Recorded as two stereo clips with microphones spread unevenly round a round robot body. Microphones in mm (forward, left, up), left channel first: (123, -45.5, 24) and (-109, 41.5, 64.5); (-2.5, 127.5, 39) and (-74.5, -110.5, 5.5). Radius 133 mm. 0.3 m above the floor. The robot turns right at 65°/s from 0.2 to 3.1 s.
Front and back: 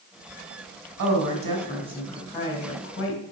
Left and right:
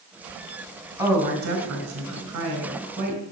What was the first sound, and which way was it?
A woman speaking, 175° left.